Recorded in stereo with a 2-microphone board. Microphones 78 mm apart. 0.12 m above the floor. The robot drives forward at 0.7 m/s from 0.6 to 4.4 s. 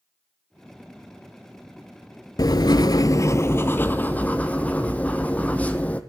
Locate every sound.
2.4 s writing: 55° left (ahead or behind), 0.5 m; by 6.0 s 20° left (ahead or behind), 1.3 m